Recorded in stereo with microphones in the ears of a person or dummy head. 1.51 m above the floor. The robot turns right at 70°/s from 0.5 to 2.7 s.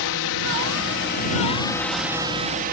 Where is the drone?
80° left; by 2.7 s 130° right.